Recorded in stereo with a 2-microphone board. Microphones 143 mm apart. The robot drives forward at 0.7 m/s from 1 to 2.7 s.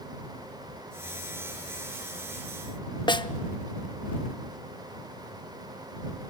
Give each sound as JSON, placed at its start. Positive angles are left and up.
{"t": 3.1, "sound": "a snare drum", "side_deg": 35, "distance_m": 0.8}